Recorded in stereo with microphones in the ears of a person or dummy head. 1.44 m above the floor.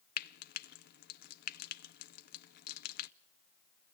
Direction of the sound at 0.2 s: 50° left (ahead or behind).